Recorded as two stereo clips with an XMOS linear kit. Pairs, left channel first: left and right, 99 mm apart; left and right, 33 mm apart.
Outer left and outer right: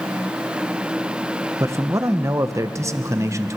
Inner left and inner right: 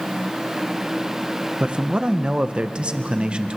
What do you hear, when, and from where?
1.6 s a man speaking: 30° right (ahead or behind), 1.1 m